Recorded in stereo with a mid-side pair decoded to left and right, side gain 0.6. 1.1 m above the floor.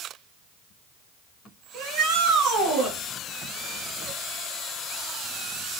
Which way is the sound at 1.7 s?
50° right.